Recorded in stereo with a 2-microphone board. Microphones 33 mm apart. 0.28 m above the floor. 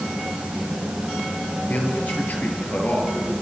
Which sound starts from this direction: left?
A man speaking, at 1.7 s.